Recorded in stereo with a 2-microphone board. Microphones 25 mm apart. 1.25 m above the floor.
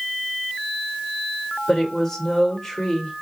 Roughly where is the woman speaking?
Centre.